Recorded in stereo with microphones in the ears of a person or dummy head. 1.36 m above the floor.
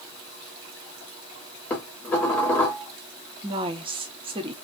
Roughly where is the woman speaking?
Right.